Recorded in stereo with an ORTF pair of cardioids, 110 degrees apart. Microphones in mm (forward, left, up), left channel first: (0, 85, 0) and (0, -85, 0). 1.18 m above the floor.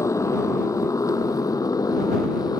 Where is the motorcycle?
20° left.